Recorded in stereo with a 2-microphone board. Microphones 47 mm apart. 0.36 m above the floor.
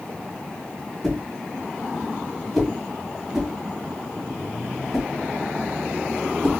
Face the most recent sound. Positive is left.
turn(degrees=5)  # may be behind; listen again after turning